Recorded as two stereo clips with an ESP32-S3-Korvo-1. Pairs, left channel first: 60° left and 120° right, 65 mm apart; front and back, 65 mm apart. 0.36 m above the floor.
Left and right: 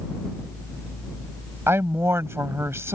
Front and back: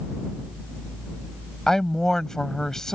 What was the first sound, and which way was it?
A woman speaking, 80° right.